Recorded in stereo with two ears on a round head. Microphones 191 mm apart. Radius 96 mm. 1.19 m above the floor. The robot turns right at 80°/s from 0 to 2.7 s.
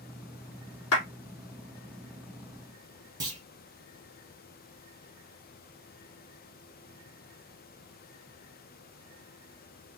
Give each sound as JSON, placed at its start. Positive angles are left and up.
{"t": 0.9, "sound": "a clap", "side_deg": 80, "distance_m": 3.0}
{"t": 3.2, "sound": "a clunk", "side_deg": -20, "distance_m": 2.5}